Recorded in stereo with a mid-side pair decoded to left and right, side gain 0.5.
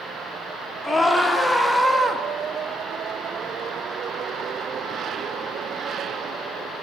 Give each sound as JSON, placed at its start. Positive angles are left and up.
{"t": 0.8, "sound": "a scream", "azimuth_deg": 20, "distance_m": 1.9}